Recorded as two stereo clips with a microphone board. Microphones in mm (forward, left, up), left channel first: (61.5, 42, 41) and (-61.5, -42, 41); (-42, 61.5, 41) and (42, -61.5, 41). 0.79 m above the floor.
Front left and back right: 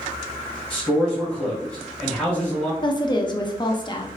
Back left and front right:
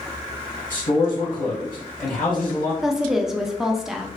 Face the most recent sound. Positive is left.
turn(degrees=30)